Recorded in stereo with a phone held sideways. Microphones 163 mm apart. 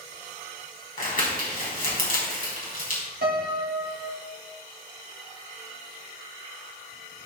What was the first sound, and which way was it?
Crumpling, 60° left (ahead or behind).